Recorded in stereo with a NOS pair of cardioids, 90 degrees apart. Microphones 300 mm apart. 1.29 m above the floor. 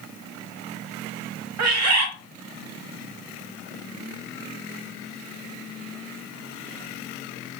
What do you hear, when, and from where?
1.6 s a bird: 65° right, 1.0 m